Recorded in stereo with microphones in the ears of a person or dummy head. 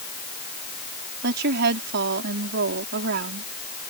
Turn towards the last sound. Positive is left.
turn(degrees=-65)  # may be behind; listen again after turning